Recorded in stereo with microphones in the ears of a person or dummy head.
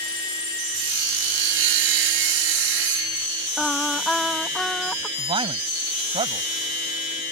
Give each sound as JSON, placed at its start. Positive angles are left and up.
{"t": 0.7, "sound": "sawing", "side_deg": -75}
{"t": 3.6, "sound": "singing", "side_deg": 0}
{"t": 5.2, "sound": "a man speaking", "side_deg": -30}